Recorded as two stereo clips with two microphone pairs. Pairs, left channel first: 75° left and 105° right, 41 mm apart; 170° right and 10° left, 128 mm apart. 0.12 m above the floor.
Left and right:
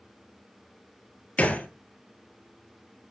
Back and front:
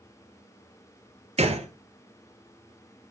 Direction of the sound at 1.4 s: 25° left.